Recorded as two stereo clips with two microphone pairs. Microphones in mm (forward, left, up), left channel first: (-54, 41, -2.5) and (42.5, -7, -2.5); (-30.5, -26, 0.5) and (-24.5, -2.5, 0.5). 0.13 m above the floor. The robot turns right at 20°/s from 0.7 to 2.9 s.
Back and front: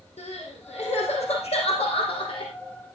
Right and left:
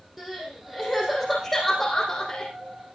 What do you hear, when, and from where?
0.2 s crying: 155° left, 5.5 m; by 2.5 s 170° right, 5.5 m